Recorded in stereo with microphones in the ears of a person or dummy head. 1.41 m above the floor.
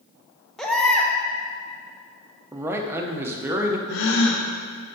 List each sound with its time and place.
0.6 s a baby crying: 10° left (ahead or behind), 0.9 m
2.5 s a man speaking: 10° right (ahead or behind), 0.7 m
3.9 s a gasp: 60° left (ahead or behind), 0.8 m